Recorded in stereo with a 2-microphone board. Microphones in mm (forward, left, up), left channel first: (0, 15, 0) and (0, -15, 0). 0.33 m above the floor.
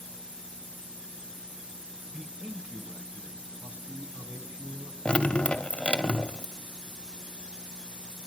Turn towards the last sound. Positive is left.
turn(degrees=40)  # may be behind; listen again after turning